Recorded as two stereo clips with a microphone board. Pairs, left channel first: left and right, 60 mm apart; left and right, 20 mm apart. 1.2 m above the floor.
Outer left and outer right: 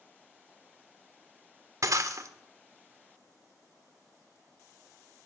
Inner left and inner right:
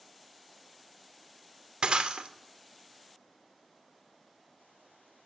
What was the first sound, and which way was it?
Breaking glass, 60° right (ahead or behind).